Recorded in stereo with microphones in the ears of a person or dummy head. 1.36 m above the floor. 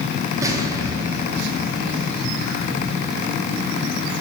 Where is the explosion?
15° right (ahead or behind), 3 m.